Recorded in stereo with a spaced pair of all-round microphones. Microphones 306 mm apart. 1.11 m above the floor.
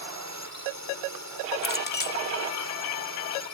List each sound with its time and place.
0.0 s a drone: 60° right (ahead or behind)
1.6 s a clink: 30° left (ahead or behind)